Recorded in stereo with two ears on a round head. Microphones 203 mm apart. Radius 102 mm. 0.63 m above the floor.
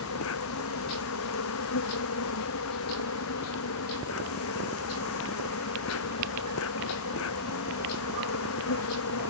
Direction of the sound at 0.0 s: 70° left (ahead or behind).